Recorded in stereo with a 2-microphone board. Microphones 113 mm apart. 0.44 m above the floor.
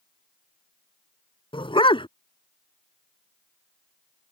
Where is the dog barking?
50° left (ahead or behind).